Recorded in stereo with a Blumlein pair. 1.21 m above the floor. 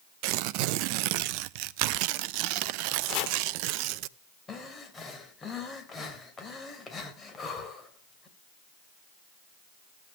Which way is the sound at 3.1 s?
35° left.